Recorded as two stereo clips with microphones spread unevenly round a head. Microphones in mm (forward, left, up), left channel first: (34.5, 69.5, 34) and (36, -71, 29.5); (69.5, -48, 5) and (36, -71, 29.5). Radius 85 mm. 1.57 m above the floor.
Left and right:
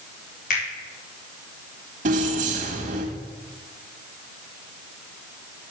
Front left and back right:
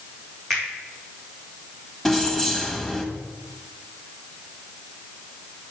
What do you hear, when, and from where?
0.5 s a finger snap: 125° left, 3 m
2.0 s keys jangling: 60° right, 1.6 m